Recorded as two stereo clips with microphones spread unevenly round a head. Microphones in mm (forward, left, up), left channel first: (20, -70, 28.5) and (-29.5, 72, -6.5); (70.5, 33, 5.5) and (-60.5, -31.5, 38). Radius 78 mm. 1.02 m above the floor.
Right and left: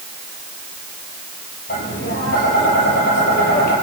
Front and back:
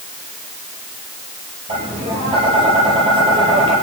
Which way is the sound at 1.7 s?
100° right.